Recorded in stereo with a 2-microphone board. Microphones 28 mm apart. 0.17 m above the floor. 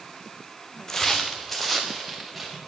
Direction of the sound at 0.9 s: 20° left (ahead or behind).